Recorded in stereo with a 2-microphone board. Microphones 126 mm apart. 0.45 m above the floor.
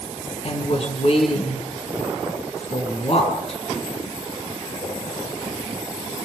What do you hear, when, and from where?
0.4 s a woman speaking: 50° left (ahead or behind), 6.5 m